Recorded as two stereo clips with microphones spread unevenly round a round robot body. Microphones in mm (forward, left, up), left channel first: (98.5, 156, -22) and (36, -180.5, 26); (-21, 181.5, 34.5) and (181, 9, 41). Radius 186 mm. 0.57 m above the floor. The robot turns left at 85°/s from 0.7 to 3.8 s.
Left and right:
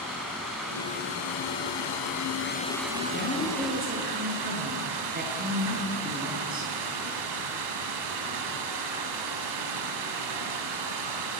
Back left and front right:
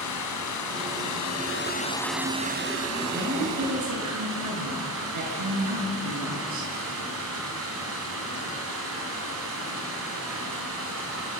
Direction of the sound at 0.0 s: 170° left.